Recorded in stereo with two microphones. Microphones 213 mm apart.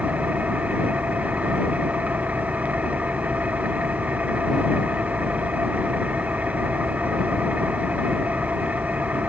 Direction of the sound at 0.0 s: 5° right (ahead or behind).